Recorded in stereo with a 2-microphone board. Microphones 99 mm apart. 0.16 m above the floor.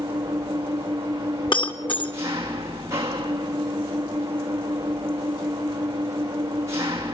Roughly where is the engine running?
Right.